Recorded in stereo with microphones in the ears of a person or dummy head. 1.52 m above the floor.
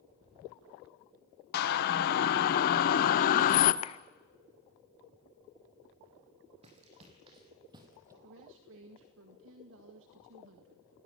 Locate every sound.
1.5 s a siren: 50° left (ahead or behind), 2 m; by 3.7 s 40° left (ahead or behind), 1.1 m
3.8 s a clap: 35° left (ahead or behind), 0.5 m
6.6 s running footsteps: 30° right (ahead or behind), 3.5 m; by 8.1 s 15° right (ahead or behind), 2.5 m
8.2 s a woman speaking: 70° right (ahead or behind), 1.8 m